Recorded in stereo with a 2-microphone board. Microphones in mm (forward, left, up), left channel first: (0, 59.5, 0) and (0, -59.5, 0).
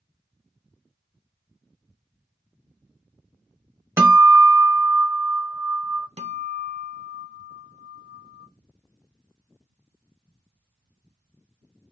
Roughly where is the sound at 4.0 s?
Right.